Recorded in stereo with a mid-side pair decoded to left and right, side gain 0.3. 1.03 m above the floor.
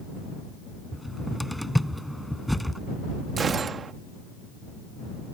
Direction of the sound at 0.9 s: Straight ahead.